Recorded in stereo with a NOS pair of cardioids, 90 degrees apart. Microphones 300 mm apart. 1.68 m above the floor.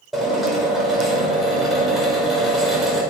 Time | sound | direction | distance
0.1 | a drill | straight ahead | 5.5 m